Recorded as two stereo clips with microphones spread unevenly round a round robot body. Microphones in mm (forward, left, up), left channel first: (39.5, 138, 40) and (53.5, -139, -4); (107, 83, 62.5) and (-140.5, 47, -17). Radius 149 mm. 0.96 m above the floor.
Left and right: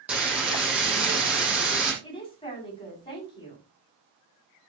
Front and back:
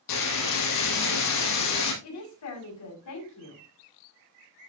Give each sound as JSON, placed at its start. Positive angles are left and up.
{"t": 0.1, "sound": "frying", "azimuth_deg": 0, "distance_m": 5.5}
{"t": 2.0, "sound": "a woman speaking", "azimuth_deg": 20, "distance_m": 6.5}